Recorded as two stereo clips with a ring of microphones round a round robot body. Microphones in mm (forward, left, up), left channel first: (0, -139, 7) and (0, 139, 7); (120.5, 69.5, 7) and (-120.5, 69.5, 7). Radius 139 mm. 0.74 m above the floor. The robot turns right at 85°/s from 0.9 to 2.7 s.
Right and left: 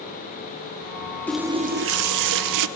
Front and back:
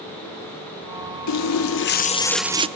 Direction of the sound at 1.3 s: 5° right.